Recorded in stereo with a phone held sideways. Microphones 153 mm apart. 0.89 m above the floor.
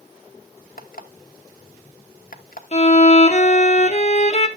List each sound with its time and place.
0.8 s an alarm clock: 65° left (ahead or behind), 1.1 m
2.7 s a violin: 45° left (ahead or behind), 1.2 m